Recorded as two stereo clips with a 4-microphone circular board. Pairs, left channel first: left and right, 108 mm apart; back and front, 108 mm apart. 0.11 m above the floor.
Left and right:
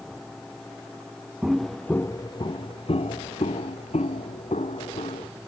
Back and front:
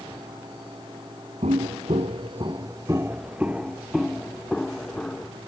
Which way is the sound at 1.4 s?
5° right.